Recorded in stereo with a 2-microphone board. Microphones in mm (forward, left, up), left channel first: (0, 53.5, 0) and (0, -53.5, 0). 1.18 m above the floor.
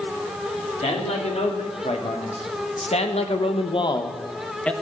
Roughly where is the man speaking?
Left.